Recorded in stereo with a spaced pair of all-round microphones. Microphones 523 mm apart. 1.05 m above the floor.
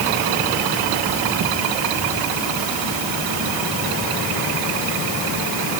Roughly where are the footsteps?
I don't hear footsteps.